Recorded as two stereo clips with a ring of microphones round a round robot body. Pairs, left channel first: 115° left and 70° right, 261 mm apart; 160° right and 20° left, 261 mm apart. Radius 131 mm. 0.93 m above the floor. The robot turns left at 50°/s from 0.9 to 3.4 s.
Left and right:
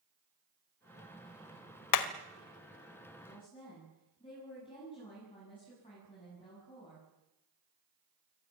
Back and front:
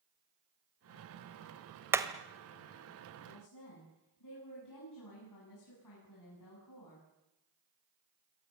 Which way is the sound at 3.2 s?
170° right.